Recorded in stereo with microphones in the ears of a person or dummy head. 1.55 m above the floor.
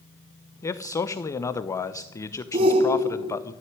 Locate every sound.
0.6 s a man speaking: 20° left (ahead or behind), 1.0 m
2.5 s a shout: 35° right (ahead or behind), 0.9 m